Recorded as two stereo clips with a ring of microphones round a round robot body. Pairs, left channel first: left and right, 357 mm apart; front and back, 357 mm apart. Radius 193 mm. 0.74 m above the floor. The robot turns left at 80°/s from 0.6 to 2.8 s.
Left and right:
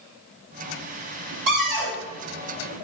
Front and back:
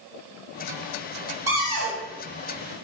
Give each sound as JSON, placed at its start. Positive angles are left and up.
{"t": 1.5, "sound": "a cupboard door", "azimuth_deg": -100, "distance_m": 1.4}